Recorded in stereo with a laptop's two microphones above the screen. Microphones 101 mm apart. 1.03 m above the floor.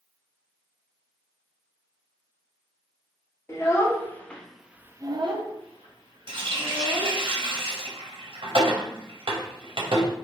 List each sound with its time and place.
3.5 s a child speaking: 30° left (ahead or behind), 1.2 m; by 7.2 s 65° right (ahead or behind), 1.6 m
6.3 s a running tap: 65° right (ahead or behind), 0.9 m